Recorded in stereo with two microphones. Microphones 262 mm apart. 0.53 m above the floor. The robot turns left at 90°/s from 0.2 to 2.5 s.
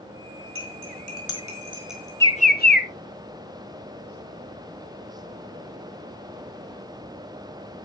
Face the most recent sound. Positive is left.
turn(degrees=35)  # may be behind; listen again after turning